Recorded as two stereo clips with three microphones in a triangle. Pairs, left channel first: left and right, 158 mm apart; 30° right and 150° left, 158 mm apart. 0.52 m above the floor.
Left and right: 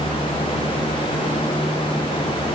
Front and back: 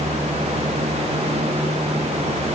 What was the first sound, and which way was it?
Only background noise.